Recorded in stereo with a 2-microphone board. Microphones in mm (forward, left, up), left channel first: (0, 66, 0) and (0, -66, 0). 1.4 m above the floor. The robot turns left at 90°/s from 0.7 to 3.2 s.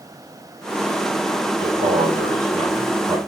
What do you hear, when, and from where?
1.6 s a man speaking: 30° right, 1.9 m; by 3.2 s 170° right, 1.9 m